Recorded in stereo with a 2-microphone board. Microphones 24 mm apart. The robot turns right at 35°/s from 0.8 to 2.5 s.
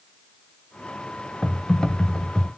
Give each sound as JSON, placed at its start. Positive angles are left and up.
{"t": 1.4, "sound": "typing on a keyboard", "side_deg": 20, "distance_m": 0.9}